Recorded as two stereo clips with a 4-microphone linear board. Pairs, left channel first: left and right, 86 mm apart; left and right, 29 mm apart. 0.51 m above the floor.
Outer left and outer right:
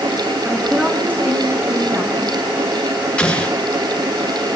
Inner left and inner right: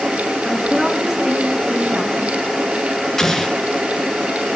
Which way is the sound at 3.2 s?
10° left (ahead or behind).